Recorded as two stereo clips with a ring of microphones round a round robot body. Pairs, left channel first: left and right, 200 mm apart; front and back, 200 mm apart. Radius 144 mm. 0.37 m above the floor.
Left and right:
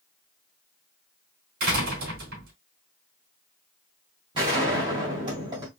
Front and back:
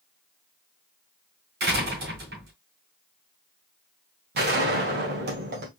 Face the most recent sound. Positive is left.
turn(degrees=-155)